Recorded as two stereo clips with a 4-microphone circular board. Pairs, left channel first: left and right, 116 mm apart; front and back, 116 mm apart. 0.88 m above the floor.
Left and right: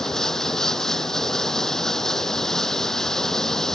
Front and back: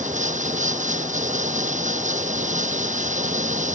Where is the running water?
175° left.